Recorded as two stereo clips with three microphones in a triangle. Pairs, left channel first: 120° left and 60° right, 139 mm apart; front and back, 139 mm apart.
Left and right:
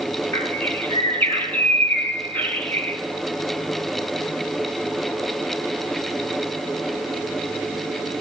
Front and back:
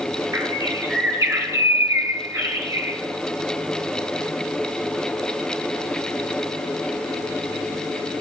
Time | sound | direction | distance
0.3 | a bird | 175° left | 1.5 m